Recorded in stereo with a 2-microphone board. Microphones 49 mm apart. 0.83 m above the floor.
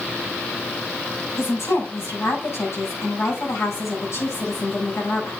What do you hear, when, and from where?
1.4 s a woman speaking: 65° left (ahead or behind), 6 m